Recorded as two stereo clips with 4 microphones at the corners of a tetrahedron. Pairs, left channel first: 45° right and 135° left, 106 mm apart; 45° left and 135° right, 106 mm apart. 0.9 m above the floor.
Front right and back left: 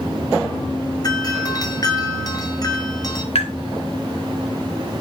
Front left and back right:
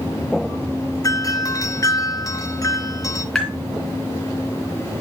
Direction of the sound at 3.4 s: 40° right.